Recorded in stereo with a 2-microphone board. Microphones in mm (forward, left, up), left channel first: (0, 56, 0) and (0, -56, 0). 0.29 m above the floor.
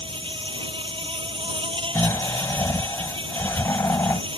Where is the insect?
50° right (ahead or behind).